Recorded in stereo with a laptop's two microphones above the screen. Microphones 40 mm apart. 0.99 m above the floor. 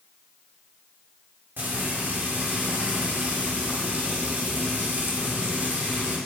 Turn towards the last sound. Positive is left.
turn(degrees=-60)  # may be behind; listen again after turning